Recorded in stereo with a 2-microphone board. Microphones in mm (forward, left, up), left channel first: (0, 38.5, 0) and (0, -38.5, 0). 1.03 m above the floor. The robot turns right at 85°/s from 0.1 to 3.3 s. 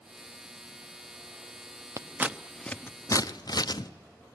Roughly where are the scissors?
Right.